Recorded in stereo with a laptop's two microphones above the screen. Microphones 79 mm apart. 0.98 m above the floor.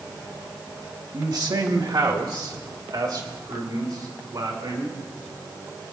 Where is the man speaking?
55° right (ahead or behind), 1.1 m.